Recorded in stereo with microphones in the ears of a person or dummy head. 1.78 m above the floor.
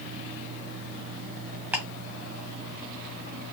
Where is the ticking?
10° right (ahead or behind), 1.4 m.